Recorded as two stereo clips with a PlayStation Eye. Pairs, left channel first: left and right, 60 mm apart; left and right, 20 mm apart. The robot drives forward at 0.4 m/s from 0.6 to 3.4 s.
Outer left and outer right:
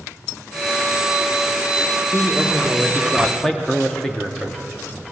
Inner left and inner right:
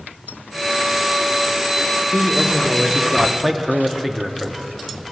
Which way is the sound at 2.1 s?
5° left (ahead or behind).